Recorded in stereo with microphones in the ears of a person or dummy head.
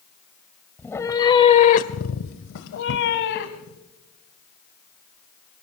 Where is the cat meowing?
5° left (ahead or behind), 1.6 m; by 3.8 s 55° left (ahead or behind), 2.5 m.